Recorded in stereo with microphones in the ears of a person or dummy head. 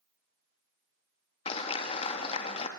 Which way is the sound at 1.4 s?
35° left (ahead or behind).